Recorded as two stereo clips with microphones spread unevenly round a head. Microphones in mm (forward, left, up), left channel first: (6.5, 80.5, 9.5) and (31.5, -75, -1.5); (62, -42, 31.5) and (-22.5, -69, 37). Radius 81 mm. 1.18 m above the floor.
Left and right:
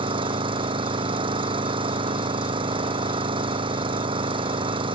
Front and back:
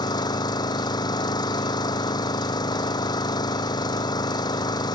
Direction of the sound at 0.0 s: 20° right.